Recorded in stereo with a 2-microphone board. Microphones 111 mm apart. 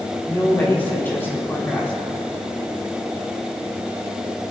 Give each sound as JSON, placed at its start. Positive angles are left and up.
{"t": 0.3, "sound": "a woman speaking", "side_deg": 20, "distance_m": 3.0}